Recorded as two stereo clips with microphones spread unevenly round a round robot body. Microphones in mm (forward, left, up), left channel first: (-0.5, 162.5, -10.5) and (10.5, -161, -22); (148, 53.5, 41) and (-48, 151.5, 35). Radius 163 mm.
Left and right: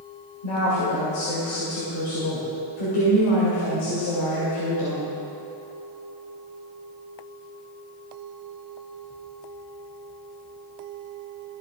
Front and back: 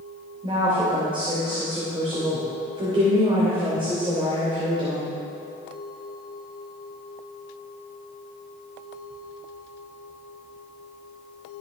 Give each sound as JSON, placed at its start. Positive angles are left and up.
{"t": 0.4, "sound": "a woman speaking", "azimuth_deg": 85, "distance_m": 3.0}